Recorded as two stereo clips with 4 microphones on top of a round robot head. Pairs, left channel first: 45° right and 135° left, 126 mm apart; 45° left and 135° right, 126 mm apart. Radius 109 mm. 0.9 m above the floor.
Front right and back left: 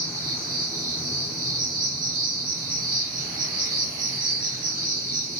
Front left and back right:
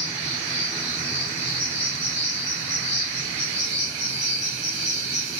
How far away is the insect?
About 2.5 m.